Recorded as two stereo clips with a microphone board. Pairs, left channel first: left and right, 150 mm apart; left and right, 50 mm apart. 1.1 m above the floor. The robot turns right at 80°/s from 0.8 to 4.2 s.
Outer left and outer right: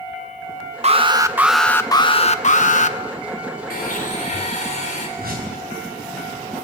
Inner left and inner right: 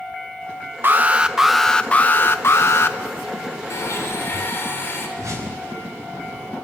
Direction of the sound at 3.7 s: 90° left.